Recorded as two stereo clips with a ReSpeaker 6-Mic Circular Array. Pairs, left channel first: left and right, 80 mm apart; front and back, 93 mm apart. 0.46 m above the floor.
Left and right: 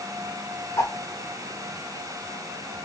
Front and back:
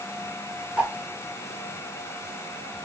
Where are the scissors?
I don't hear scissors.